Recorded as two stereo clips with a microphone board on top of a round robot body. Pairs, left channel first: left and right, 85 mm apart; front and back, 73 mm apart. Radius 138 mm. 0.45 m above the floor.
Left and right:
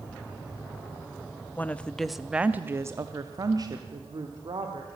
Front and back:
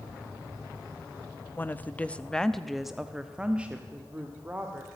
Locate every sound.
1.6 s a woman speaking: 40° left, 0.8 m; by 4.9 s 115° right, 1.6 m